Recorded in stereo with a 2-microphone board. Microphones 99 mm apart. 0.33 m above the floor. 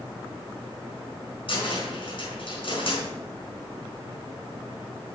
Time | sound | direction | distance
1.5 | a cupboard door | 60° left (ahead or behind) | 4.5 m